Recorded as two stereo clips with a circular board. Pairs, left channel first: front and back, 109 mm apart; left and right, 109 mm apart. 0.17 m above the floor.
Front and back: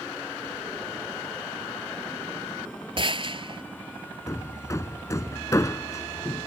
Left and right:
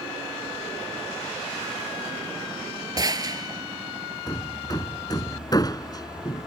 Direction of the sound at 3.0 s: 140° right.